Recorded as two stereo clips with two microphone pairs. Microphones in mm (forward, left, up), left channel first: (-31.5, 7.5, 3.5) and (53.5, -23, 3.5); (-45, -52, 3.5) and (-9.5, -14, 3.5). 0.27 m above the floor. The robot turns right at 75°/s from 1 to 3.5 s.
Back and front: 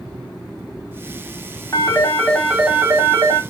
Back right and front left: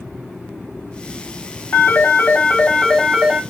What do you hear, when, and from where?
1.7 s a phone ringing: 155° right, 1.3 m; by 3.4 s 30° right, 1.3 m